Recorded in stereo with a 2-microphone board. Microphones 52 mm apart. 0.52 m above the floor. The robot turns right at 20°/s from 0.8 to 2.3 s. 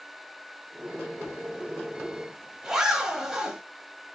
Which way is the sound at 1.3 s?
35° right (ahead or behind).